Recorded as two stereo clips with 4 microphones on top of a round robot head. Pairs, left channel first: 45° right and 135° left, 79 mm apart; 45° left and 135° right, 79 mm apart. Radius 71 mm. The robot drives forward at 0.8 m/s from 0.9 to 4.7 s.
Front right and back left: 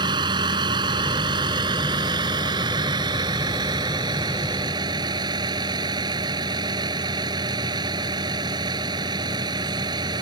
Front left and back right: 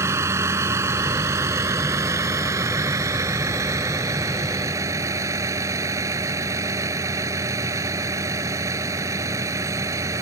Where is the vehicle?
170° left.